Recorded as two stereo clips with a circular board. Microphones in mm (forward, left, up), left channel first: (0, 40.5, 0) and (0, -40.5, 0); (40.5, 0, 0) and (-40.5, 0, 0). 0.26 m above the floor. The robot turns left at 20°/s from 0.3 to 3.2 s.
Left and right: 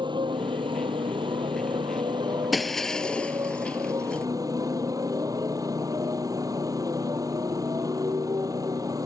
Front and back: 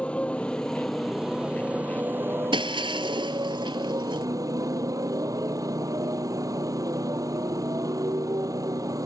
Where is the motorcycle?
75° right; by 9.1 s 135° right.